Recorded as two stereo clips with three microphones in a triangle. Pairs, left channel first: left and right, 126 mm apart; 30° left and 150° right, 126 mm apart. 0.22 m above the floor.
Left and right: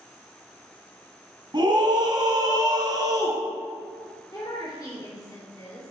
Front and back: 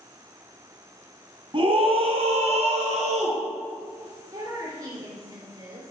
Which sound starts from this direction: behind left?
A woman speaking, at 4.3 s.